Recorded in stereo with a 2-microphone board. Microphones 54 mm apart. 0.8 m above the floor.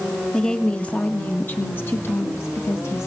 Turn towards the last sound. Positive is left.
turn(degrees=60)  # may be behind; listen again after turning